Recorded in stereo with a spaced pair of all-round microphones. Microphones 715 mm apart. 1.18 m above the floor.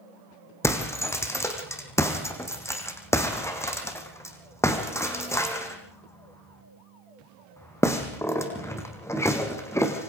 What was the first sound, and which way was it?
Breaking glass, 5° left (ahead or behind).